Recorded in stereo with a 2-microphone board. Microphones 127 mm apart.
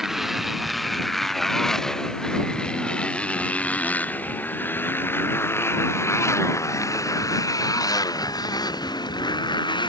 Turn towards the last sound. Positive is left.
turn(degrees=35)  # may be behind; listen again after turning